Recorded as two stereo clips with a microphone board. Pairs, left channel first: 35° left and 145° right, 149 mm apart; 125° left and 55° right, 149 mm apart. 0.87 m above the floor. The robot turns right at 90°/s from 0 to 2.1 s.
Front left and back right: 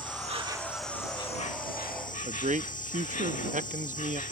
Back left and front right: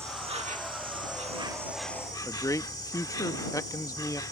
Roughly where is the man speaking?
Behind.